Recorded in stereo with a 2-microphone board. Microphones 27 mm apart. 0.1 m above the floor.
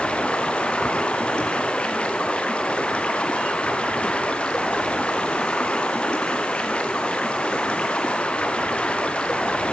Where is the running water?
40° left (ahead or behind), 1.1 m.